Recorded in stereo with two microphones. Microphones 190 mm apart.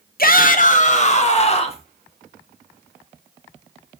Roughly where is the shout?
Left.